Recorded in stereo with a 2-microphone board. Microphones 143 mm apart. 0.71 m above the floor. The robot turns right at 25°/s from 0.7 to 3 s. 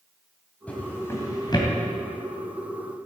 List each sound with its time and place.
0.7 s a drawer: 10° left (ahead or behind), 3 m; by 1.7 s 35° left (ahead or behind), 3 m